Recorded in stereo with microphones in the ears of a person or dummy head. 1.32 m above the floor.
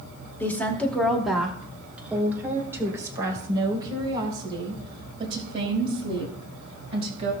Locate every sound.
0.4 s a woman speaking: 10° left (ahead or behind), 2 m; by 7.3 s 35° right (ahead or behind), 5 m